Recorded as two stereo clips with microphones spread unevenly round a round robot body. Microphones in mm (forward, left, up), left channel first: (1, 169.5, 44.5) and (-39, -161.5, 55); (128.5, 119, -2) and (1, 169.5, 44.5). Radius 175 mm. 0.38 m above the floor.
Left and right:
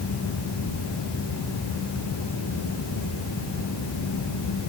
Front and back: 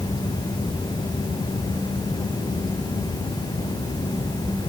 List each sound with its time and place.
Only background noise.